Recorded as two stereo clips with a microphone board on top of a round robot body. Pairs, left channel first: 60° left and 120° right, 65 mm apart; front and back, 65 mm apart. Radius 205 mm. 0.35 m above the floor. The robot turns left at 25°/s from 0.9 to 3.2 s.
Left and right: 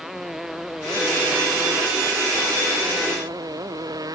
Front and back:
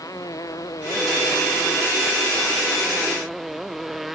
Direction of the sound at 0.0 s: 35° right.